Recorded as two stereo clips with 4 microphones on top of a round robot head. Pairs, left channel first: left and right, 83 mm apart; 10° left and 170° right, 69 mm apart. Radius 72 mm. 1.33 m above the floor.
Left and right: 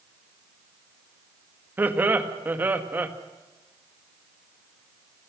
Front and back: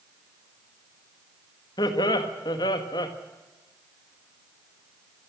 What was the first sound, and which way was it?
Laughter, 25° right.